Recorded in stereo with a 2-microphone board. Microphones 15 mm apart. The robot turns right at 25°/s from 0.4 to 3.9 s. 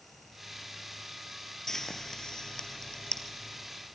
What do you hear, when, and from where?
1.7 s frying: 25° left (ahead or behind), 2.0 m; by 3.9 s 70° left (ahead or behind), 2.0 m